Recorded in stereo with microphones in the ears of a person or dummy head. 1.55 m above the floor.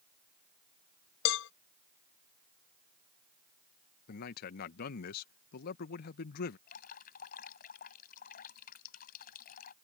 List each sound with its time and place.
1.2 s a cowbell: 75° left (ahead or behind)
4.1 s a man speaking: 55° left (ahead or behind)
6.7 s dripping: 55° left (ahead or behind)